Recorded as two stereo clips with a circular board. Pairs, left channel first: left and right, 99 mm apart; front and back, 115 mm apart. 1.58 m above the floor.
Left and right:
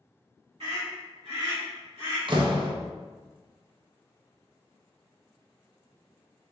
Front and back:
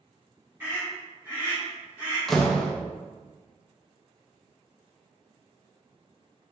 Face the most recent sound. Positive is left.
turn(degrees=-90)